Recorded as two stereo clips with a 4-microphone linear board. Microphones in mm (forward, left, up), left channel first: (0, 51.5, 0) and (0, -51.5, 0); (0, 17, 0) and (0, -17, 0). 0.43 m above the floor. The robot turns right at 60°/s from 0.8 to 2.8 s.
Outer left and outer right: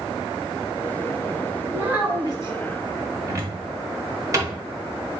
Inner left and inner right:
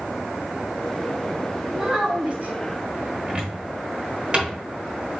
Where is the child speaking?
175° right, 1.8 m; by 2.5 s 125° right, 1.8 m.